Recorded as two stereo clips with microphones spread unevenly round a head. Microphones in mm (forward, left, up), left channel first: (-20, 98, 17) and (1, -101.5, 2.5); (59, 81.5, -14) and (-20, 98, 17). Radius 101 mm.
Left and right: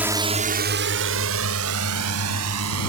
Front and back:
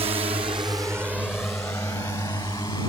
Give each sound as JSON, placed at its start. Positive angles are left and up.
{"t": 0.0, "sound": "a drone", "azimuth_deg": -165}